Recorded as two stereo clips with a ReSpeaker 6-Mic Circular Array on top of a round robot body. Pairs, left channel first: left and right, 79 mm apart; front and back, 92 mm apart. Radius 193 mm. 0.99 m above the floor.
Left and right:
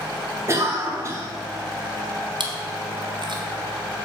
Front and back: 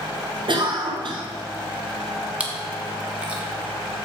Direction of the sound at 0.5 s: 145° right.